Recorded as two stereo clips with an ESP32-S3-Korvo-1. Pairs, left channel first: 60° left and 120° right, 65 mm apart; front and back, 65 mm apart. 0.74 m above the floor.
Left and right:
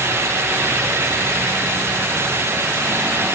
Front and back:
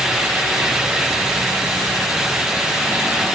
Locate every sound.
Only background noise.